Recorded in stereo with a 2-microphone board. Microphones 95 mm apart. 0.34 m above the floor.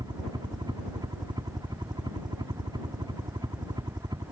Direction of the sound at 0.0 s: 55° right (ahead or behind).